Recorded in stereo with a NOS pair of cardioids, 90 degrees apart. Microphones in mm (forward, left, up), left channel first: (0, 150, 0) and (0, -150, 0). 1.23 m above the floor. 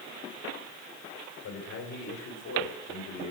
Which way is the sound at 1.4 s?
70° left.